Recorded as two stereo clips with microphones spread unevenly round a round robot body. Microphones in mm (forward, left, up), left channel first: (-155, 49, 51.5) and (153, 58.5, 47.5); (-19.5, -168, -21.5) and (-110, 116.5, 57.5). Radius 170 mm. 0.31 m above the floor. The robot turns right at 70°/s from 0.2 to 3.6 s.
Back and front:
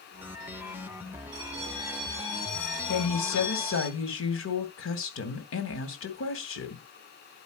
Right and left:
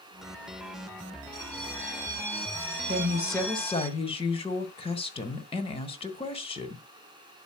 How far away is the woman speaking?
About 2.5 m.